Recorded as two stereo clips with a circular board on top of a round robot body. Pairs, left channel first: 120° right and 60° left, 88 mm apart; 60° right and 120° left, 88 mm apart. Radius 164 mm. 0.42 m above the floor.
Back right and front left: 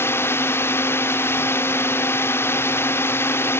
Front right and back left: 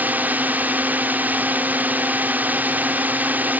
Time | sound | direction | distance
0.0 | a drone | 175° right | ?